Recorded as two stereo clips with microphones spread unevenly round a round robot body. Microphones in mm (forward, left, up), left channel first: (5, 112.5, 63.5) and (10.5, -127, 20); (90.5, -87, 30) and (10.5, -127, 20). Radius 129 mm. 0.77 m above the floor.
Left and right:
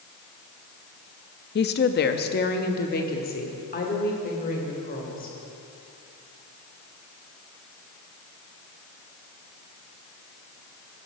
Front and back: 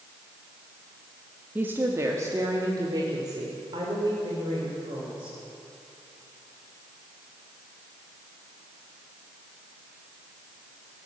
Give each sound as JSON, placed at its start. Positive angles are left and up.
{"t": 1.6, "sound": "a woman speaking", "azimuth_deg": 140, "distance_m": 0.7}